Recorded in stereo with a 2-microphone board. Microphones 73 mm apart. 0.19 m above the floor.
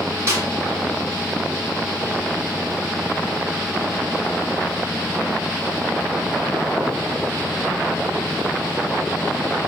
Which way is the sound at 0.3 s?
35° right (ahead or behind).